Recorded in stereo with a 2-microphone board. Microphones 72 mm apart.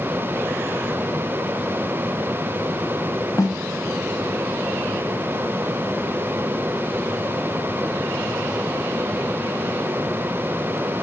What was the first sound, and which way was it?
A snare drum, 55° left (ahead or behind).